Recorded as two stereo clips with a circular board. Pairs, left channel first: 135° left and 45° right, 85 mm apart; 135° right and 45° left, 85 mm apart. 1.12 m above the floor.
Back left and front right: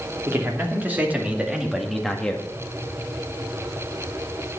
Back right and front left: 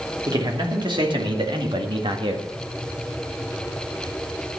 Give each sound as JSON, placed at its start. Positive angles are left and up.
{"t": 0.3, "sound": "a man speaking", "azimuth_deg": 15, "distance_m": 3.0}